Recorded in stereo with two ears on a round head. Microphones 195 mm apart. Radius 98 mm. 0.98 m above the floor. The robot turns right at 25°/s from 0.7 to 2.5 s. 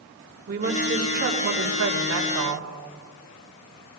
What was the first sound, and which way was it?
A woman speaking, 135° right.